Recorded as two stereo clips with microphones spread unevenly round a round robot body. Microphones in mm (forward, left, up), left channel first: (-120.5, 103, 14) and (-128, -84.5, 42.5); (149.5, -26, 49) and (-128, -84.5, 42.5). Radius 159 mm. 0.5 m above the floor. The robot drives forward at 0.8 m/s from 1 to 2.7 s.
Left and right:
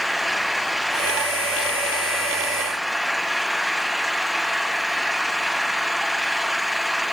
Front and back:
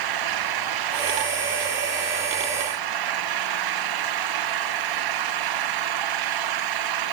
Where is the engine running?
Straight behind.